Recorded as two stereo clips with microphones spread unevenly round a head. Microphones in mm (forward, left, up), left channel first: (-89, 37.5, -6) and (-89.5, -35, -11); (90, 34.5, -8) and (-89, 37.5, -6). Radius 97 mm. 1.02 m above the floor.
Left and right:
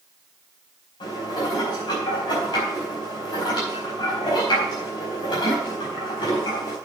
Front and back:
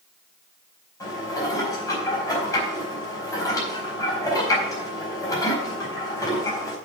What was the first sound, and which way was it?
Dishes clattering, 70° left.